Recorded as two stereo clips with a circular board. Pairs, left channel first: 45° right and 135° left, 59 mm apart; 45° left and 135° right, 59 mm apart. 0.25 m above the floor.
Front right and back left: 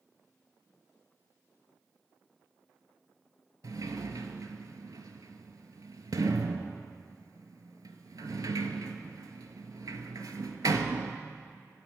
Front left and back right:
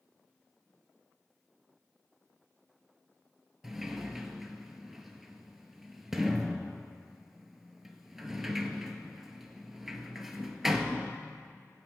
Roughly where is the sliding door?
Behind left.